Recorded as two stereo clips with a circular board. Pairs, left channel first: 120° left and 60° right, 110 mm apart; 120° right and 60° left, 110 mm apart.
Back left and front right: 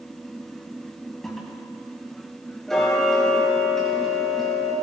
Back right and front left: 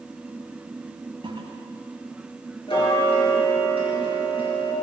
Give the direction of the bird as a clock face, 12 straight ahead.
I don't hear a bird.